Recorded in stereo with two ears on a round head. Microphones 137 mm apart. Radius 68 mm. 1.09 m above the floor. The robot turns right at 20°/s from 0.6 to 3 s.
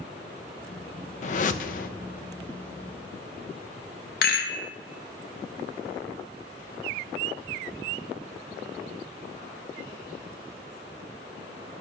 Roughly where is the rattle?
Left.